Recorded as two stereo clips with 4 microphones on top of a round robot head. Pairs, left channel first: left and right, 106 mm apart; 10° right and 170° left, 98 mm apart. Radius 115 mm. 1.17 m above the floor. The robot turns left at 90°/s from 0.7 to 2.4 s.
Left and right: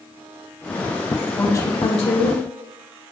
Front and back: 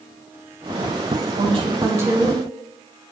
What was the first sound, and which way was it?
A woman speaking, 165° left.